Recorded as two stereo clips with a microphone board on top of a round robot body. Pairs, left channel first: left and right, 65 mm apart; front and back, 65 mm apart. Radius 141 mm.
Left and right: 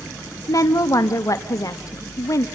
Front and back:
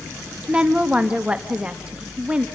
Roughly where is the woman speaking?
Left.